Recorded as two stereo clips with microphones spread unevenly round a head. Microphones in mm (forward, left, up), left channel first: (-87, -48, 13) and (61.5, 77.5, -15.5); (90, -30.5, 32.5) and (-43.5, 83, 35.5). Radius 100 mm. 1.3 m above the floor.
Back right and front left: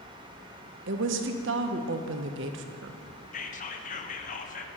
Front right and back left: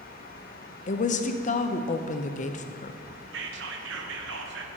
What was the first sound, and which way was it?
A woman speaking, 5° left.